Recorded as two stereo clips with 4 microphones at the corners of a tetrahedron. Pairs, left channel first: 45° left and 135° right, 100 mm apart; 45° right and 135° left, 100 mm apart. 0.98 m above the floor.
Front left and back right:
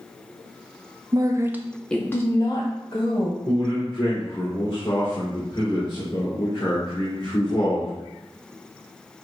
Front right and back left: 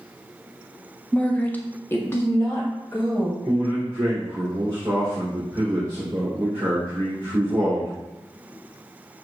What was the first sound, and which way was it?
A woman speaking, 120° right.